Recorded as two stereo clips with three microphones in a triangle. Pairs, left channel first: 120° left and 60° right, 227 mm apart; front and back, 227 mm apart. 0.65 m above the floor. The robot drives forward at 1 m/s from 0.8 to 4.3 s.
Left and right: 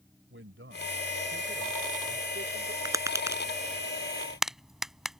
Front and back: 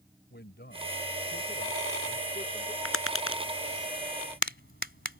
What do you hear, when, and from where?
0.3 s a man speaking: 40° right; by 2.8 s 65° right
2.9 s tapping: 15° left; by 5.2 s 30° left